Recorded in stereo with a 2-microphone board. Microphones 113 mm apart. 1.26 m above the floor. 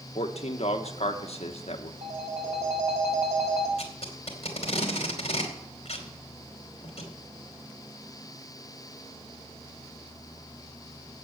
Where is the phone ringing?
75° right (ahead or behind), 1.8 m.